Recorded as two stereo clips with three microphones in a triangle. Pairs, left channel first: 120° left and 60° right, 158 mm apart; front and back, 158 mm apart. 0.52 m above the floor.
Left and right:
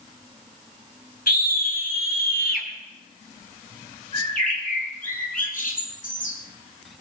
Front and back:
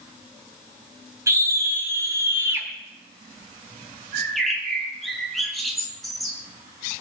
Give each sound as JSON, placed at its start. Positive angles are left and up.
{"t": 1.3, "sound": "a scream", "azimuth_deg": 110, "distance_m": 4.0}
{"t": 4.1, "sound": "a bird", "azimuth_deg": 90, "distance_m": 4.5}